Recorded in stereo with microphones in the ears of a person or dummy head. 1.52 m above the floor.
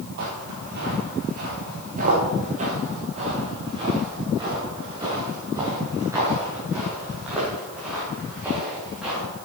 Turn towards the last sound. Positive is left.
turn(degrees=0)  # may be behind; listen again after turning